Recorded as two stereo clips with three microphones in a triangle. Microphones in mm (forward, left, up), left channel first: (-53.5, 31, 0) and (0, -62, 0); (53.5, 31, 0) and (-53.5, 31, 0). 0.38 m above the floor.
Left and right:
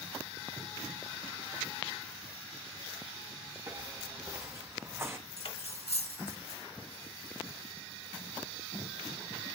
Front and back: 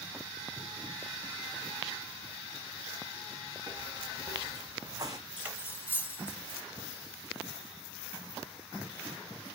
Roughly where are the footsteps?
Behind right.